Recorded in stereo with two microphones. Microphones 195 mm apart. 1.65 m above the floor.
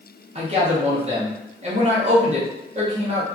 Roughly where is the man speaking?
Right.